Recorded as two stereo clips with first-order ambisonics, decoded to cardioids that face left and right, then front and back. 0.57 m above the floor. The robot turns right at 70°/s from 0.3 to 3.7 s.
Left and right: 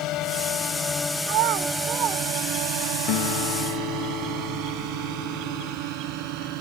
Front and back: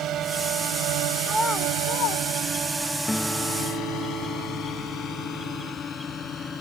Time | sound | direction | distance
0.0 | a drone | 130° left | ?
1.2 | a child speaking | 95° right | ?
3.1 | a guitar | 80° left | ?